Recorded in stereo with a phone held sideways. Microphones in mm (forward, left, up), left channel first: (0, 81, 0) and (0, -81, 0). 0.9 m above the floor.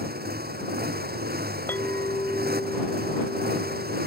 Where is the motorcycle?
75° right (ahead or behind).